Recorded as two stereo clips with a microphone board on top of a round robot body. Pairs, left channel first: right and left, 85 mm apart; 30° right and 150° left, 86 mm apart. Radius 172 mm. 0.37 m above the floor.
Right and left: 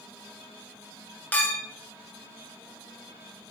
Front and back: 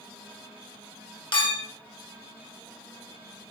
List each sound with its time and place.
1.3 s a clink: 20° right, 1.9 m